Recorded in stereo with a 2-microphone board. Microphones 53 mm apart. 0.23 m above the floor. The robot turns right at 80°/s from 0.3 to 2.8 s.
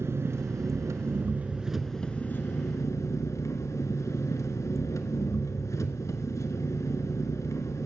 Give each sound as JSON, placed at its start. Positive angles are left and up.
{"t": 0.0, "sound": "an engine running", "azimuth_deg": -120, "distance_m": 0.9}